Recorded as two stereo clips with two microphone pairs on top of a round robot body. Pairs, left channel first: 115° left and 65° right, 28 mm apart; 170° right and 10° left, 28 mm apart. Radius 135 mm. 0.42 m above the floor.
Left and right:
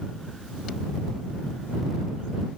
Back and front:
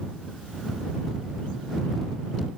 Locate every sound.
Only background noise.